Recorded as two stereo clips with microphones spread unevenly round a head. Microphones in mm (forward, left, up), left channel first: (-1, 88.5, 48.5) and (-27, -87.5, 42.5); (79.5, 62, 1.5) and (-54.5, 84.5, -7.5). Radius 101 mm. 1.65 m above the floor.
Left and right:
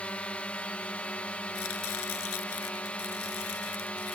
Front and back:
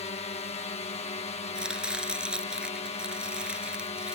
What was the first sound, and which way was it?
A drone, straight ahead.